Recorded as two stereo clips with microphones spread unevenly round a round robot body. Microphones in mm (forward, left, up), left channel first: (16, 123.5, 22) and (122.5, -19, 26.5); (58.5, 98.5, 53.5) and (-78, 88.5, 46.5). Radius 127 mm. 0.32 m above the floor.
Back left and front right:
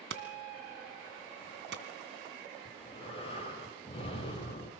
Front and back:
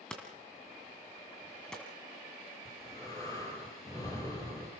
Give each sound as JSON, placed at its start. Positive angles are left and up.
{"t": 0.1, "sound": "hammering", "azimuth_deg": -85, "distance_m": 2.0}
{"t": 2.6, "sound": "breathing", "azimuth_deg": 70, "distance_m": 9.0}